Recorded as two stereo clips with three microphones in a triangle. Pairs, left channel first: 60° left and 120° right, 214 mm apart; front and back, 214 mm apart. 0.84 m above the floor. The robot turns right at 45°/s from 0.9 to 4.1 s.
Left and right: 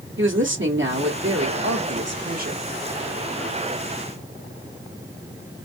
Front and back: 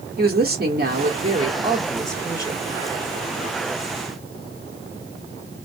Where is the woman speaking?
140° right, 1.7 m; by 2.6 s 65° right, 1.7 m.